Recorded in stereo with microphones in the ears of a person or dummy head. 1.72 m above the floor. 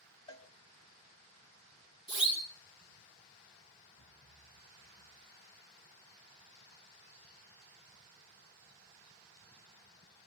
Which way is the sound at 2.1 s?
30° left (ahead or behind).